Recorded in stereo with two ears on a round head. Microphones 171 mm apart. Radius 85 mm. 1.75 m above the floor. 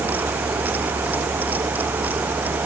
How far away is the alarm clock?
I don't hear an alarm clock.